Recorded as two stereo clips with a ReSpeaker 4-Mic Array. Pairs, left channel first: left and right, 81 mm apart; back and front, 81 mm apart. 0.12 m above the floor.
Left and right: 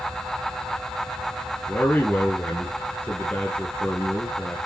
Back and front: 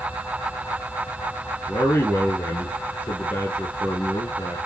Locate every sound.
1.7 s a man speaking: 145° left, 1.7 m